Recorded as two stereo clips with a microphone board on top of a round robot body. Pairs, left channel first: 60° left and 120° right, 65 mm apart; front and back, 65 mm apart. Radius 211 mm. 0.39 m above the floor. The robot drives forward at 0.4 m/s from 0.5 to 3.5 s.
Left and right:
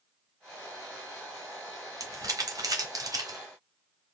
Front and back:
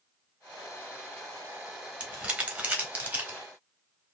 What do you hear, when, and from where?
2.0 s crumpling: 110° right, 2 m; by 3.4 s 125° right, 2.5 m